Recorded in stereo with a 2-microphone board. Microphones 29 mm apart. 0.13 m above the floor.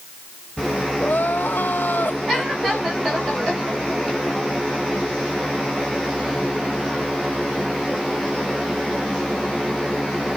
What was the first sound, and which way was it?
Crying, 80° left.